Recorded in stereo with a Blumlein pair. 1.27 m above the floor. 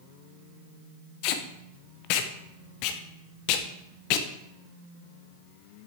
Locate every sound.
1.2 s tape being pulled: 45° left, 0.8 m